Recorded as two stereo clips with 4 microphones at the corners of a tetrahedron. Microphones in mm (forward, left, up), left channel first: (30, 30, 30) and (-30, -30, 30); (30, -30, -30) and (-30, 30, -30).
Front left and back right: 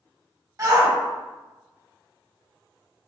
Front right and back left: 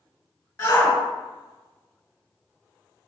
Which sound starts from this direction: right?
A shout, at 0.6 s.